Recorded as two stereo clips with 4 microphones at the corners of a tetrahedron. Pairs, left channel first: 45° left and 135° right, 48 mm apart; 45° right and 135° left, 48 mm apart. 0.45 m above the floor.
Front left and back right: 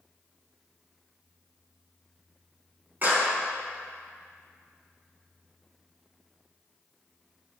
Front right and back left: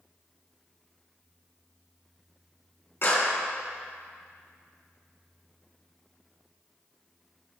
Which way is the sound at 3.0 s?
80° right.